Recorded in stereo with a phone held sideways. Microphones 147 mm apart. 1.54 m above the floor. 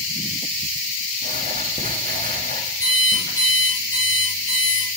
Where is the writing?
80° right, 1.2 m.